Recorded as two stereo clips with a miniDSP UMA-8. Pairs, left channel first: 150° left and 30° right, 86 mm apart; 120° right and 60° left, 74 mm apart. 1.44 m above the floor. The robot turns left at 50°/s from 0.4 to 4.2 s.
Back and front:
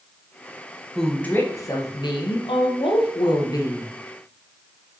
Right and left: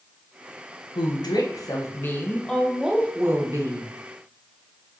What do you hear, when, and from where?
0.9 s a woman speaking: 125° right, 1.4 m; by 3.9 s 90° left, 1.4 m